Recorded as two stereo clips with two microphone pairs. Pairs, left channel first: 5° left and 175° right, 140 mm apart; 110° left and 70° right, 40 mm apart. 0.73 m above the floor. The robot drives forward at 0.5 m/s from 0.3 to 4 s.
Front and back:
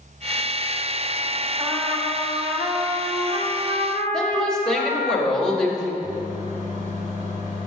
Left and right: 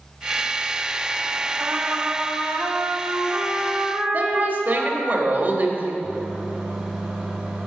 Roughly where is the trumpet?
Right.